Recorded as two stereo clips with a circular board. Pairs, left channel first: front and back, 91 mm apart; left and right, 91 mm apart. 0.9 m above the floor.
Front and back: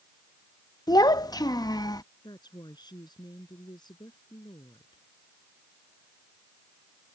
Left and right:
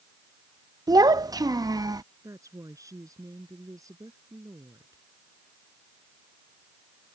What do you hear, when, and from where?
0.9 s a child speaking: 45° right
2.2 s a woman speaking: 40° right